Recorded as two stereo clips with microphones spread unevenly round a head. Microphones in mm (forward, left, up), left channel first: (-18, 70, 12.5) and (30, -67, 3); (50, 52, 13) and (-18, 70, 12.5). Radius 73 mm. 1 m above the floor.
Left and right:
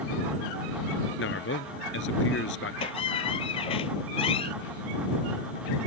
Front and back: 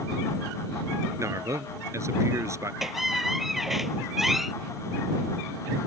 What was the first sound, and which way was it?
A man speaking, 120° left.